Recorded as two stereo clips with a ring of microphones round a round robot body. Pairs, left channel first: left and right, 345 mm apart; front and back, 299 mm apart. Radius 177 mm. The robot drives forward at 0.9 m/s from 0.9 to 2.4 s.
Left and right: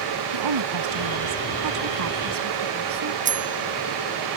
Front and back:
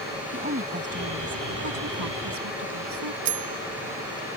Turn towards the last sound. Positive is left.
turn(degrees=-160)